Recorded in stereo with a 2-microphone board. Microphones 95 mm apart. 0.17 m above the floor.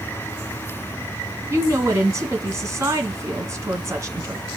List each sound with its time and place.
1.5 s a woman speaking: 30° right (ahead or behind), 1.9 m